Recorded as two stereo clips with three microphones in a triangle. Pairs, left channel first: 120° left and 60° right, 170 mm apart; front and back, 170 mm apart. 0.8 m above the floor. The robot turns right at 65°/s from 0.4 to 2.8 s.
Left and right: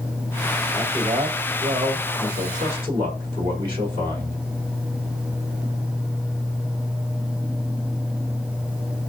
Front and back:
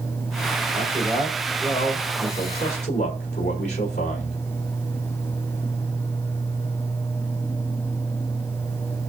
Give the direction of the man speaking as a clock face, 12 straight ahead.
5 o'clock.